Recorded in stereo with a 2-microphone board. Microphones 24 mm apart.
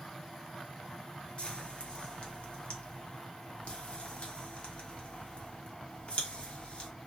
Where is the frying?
55° left (ahead or behind), 0.7 m.